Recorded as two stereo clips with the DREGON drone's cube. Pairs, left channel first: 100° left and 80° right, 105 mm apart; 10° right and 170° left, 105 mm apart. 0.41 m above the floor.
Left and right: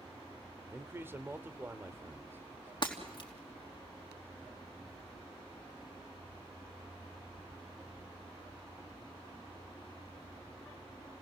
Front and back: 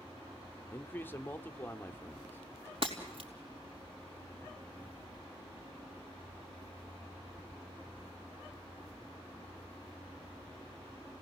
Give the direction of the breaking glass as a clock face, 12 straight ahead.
7 o'clock.